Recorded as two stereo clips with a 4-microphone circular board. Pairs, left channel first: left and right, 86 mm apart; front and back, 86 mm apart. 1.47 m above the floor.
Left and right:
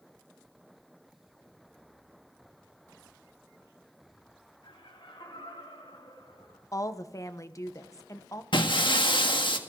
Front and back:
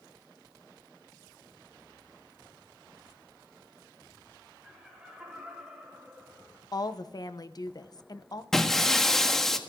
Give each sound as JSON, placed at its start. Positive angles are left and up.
{"t": 4.6, "sound": "laughter", "azimuth_deg": 100, "distance_m": 6.5}
{"t": 6.7, "sound": "a woman speaking", "azimuth_deg": 40, "distance_m": 1.0}
{"t": 8.5, "sound": "breaking glass", "azimuth_deg": 85, "distance_m": 1.6}